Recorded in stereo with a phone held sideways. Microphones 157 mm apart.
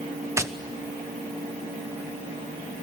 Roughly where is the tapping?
Centre.